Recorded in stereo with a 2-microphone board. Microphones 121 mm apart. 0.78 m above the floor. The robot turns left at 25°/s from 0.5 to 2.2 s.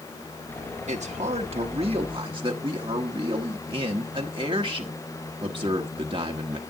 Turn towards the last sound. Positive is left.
turn(degrees=-135)